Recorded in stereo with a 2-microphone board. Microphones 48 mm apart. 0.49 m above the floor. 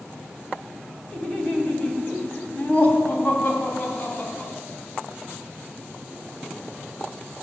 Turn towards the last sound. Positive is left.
turn(degrees=40)  # may be behind; listen again after turning